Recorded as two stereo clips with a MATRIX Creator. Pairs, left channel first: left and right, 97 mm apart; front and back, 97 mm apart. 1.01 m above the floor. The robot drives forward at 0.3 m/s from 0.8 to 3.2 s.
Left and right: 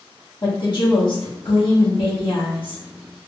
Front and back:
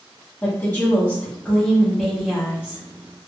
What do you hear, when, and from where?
0.4 s a woman speaking: 70° left, 1.2 m; by 2.8 s 105° left, 1.2 m